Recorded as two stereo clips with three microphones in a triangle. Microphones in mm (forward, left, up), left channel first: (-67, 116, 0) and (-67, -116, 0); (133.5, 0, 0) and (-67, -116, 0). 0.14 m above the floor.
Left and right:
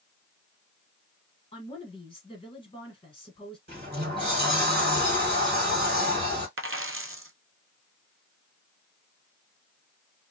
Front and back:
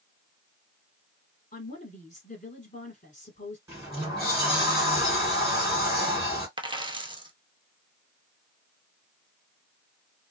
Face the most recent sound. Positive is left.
turn(degrees=-80)